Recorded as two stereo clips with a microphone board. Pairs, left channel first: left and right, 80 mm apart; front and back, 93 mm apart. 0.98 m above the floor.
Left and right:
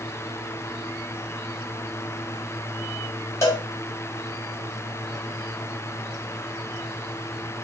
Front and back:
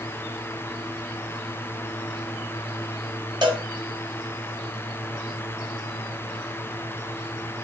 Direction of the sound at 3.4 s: 145° left.